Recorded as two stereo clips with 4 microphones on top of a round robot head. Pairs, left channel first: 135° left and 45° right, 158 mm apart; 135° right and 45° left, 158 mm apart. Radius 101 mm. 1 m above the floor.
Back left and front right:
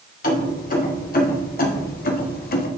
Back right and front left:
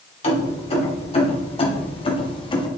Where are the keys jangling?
170° left, 2.5 m; by 2.7 s 165° left, 1.2 m.